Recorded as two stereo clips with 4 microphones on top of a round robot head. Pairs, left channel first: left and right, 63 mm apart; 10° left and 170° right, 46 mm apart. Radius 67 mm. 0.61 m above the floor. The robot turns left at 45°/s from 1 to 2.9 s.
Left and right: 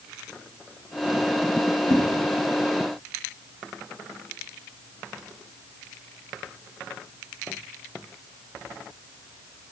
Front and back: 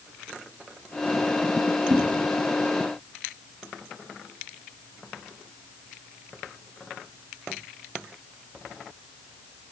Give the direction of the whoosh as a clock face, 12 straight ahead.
8 o'clock.